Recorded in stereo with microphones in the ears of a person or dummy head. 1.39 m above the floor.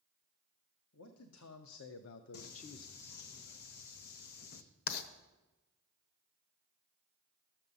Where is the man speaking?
80° left, 1.1 m; by 3.2 s 5° left (ahead or behind), 0.5 m.